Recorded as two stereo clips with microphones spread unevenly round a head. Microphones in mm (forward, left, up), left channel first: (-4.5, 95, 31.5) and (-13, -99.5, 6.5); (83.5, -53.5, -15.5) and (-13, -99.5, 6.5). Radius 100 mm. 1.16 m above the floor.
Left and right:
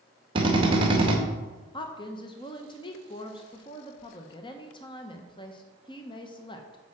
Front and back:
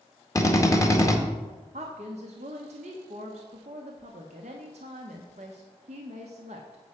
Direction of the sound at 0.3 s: 30° right.